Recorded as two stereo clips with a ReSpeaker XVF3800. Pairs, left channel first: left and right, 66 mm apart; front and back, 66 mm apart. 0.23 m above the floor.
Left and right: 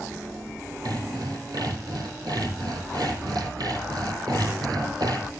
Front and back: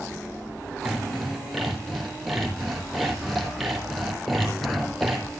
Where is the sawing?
85° right, 4 m.